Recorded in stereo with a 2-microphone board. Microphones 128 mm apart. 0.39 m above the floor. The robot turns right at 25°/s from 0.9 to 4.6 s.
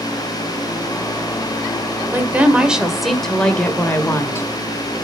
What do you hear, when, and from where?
2.1 s a woman speaking: 20° right, 1.7 m; by 4.5 s 35° left, 1.7 m